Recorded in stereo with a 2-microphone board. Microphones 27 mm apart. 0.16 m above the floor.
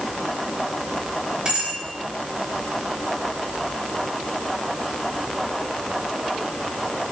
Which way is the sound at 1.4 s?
35° right (ahead or behind).